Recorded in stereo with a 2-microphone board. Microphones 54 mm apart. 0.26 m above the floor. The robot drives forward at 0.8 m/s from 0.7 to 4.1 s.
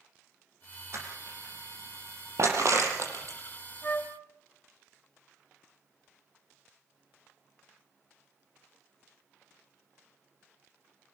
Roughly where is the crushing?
Right.